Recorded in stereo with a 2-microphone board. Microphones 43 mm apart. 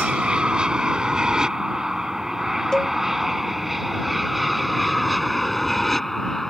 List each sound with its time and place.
0.0 s an aircraft: 25° right (ahead or behind); by 6.5 s 5° left (ahead or behind)
2.7 s a cowbell: 15° left (ahead or behind)